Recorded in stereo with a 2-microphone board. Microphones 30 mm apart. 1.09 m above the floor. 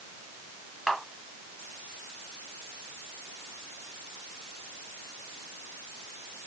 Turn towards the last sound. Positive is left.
turn(degrees=15)  # may be behind; listen again after turning